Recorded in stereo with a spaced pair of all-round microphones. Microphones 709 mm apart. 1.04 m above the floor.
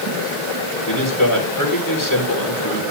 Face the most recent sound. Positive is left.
turn(degrees=30)  # may be behind; listen again after turning